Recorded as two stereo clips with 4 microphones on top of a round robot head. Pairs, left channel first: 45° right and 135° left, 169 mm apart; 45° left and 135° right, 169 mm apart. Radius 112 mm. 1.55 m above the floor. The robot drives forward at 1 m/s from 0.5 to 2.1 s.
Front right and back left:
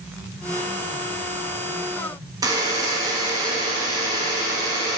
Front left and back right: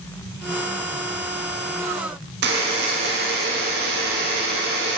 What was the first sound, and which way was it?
A buzzer, 160° right.